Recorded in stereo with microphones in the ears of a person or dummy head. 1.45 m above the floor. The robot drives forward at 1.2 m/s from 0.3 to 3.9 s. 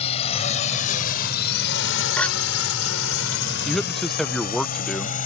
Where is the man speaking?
5° left (ahead or behind).